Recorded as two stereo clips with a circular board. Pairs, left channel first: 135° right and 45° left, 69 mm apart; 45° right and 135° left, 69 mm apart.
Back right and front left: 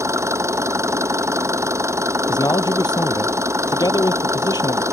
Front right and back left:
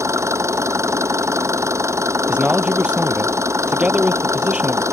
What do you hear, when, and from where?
0.0 s an engine running: 90° left
2.3 s a man speaking: 150° right